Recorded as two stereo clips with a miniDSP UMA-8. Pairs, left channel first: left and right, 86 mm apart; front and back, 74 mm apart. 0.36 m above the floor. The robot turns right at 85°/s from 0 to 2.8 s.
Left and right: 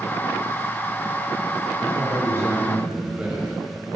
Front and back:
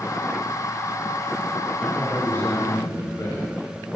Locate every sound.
1.8 s a man speaking: 100° right, 1.9 m; by 3.4 s 15° right, 1.9 m